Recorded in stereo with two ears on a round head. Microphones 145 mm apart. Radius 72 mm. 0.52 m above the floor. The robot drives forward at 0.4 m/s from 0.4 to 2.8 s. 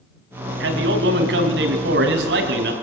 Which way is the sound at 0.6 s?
75° right (ahead or behind).